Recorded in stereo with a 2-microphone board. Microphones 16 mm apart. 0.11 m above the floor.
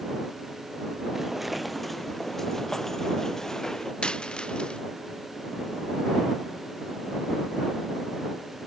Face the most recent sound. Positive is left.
turn(degrees=70)  # may be behind; listen again after turning